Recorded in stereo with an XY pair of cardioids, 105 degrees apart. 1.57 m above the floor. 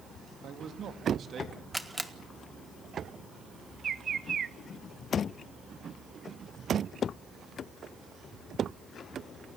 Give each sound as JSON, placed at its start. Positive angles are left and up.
{"t": 0.4, "sound": "a man speaking", "azimuth_deg": -65, "distance_m": 2.5}
{"t": 1.7, "sound": "a camera shutter", "azimuth_deg": -10, "distance_m": 1.6}
{"t": 3.8, "sound": "a bird", "azimuth_deg": -45, "distance_m": 0.8}